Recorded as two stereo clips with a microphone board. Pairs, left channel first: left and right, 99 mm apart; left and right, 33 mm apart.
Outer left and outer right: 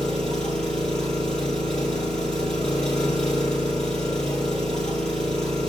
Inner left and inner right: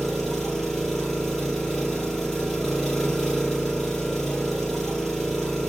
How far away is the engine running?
About 2.5 m.